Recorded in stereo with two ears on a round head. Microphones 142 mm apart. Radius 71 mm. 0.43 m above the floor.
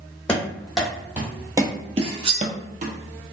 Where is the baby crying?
No baby crying in this recording.